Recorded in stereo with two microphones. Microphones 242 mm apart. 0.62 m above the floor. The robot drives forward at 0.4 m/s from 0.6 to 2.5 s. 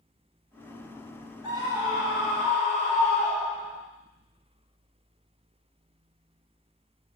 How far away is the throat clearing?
I don't hear throat clearing.